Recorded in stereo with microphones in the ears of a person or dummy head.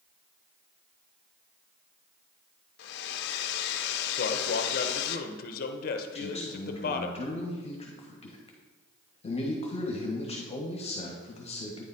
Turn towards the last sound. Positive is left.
turn(degrees=35)  # may be behind; listen again after turning